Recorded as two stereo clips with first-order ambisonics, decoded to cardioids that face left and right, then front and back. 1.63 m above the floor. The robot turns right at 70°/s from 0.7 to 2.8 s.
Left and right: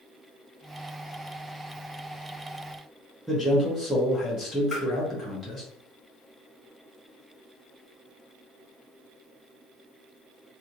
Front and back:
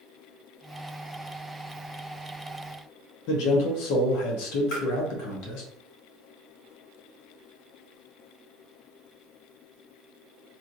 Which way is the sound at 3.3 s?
Straight ahead.